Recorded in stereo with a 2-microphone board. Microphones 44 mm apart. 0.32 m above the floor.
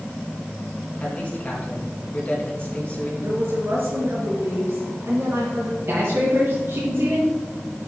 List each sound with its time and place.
1.0 s a man speaking: 30° left (ahead or behind), 3.5 m
3.2 s a woman speaking: 65° right (ahead or behind), 4 m
5.9 s a man speaking: 65° right (ahead or behind), 2.5 m